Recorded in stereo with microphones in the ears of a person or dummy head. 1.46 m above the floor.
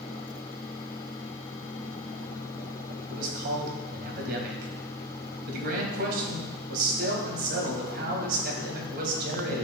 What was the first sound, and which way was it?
A man speaking, 55° right (ahead or behind).